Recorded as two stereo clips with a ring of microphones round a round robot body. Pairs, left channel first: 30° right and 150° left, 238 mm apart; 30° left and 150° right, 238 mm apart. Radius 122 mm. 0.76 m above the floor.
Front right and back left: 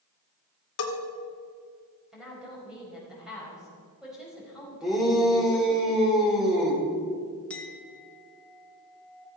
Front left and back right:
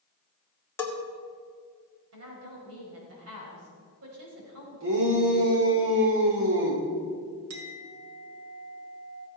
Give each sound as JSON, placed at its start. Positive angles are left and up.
{"t": 0.8, "sound": "a bell", "azimuth_deg": -50, "distance_m": 2.5}
{"t": 2.1, "sound": "a woman speaking", "azimuth_deg": -125, "distance_m": 5.0}
{"t": 4.8, "sound": "a shout", "azimuth_deg": -120, "distance_m": 3.0}
{"t": 7.5, "sound": "a clink", "azimuth_deg": -115, "distance_m": 1.9}